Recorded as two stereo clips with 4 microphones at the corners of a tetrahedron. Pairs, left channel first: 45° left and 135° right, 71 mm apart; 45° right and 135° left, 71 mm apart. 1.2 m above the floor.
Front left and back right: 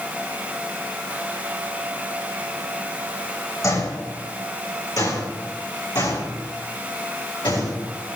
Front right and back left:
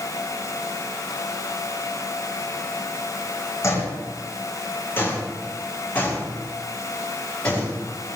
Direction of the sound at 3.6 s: 5° left.